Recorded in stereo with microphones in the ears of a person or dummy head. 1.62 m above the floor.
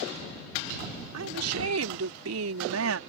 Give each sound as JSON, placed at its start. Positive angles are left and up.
{"t": 1.1, "sound": "a woman speaking", "side_deg": -80}